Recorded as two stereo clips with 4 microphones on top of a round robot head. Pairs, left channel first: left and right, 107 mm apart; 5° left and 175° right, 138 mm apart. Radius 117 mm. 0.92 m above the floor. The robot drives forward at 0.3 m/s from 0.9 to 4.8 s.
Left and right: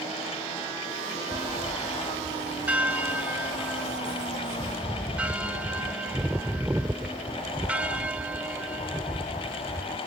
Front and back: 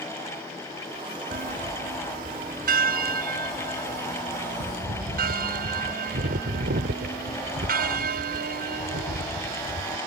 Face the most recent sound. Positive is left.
turn(degrees=-170)